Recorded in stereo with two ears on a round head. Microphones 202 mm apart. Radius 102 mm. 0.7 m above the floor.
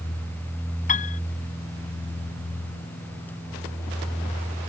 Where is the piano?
35° left (ahead or behind).